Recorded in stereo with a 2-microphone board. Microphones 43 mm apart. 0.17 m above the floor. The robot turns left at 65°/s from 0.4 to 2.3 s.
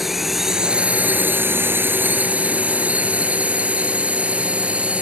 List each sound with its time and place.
0.0 s a drone: 5° right (ahead or behind); by 5.0 s 30° right (ahead or behind)